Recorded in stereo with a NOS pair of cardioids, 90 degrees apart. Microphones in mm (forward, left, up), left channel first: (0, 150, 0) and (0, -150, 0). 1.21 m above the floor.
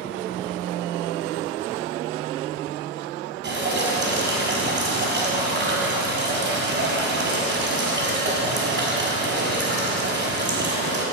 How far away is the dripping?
About 5 m.